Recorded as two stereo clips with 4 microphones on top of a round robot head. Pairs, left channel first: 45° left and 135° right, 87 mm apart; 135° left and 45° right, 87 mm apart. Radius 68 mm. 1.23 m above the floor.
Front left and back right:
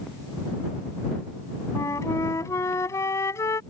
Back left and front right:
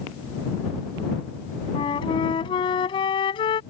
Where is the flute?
100° left.